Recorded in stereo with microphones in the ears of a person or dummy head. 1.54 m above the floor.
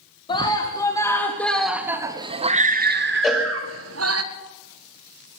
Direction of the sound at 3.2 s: Centre (ahead or behind).